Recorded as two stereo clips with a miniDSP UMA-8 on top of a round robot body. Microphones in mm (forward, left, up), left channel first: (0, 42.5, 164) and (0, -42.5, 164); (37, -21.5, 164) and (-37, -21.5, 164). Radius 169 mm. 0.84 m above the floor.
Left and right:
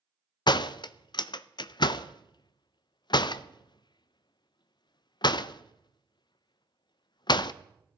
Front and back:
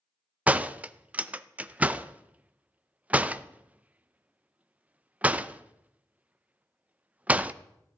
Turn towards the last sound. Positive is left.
turn(degrees=110)